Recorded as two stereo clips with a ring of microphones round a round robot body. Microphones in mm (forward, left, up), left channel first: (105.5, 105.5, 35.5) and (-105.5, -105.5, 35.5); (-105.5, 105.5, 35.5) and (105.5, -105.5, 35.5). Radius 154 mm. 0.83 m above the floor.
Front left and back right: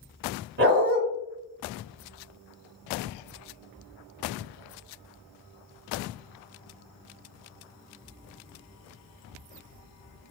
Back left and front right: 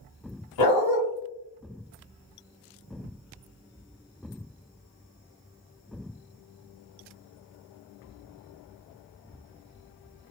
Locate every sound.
0.6 s a dog barking: 165° left, 1.6 m